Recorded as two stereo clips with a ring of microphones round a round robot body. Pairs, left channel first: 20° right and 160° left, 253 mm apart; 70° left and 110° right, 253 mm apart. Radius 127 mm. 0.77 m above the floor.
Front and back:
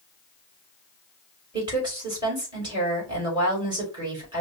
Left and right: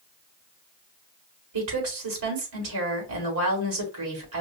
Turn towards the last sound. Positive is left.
turn(degrees=-130)